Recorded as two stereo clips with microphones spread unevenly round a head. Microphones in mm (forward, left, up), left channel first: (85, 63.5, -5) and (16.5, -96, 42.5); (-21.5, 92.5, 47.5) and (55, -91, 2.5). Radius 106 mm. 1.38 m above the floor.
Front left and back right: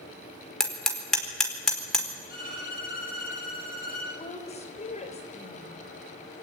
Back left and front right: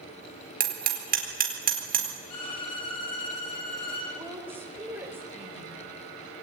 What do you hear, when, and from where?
0.6 s hammering: 20° right, 4.5 m
2.3 s a violin: 120° left, 9 m
4.2 s a woman speaking: 15° left, 5 m